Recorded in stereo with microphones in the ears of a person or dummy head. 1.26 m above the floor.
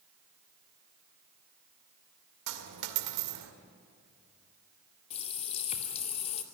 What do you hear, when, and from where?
2.5 s a dropped coin: 75° right (ahead or behind), 2 m
5.1 s a running tap: 40° left (ahead or behind), 2 m